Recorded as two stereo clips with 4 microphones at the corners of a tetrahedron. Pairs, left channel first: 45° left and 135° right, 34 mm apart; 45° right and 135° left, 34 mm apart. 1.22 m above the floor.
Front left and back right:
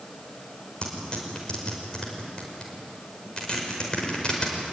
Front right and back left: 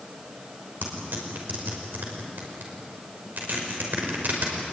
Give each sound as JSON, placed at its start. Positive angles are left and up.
{"t": 0.8, "sound": "tearing paper", "azimuth_deg": 105, "distance_m": 5.0}